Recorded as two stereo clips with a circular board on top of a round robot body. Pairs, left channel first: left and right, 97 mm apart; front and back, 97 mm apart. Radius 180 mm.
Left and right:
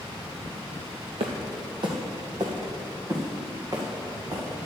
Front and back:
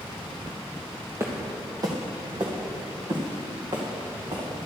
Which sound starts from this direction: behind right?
Footsteps, at 1.2 s.